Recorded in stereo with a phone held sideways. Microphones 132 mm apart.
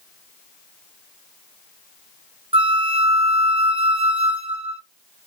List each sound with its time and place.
2.5 s a flute: 45° right (ahead or behind), 0.7 m